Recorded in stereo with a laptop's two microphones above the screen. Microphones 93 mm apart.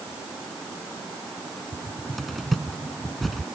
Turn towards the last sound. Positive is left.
turn(degrees=0)  # may be behind; listen again after turning